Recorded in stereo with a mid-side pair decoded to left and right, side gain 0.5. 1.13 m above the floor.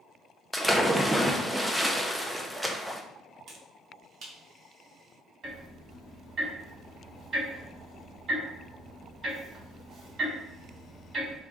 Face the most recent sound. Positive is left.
turn(degrees=-45)